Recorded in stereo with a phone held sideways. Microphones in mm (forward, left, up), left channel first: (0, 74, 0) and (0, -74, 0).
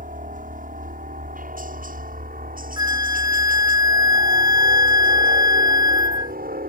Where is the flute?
25° right (ahead or behind).